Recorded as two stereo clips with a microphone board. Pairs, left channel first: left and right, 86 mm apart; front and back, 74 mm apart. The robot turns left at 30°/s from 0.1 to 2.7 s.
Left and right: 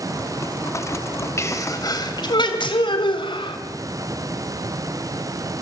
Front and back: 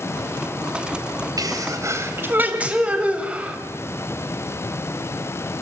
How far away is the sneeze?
About 3 m.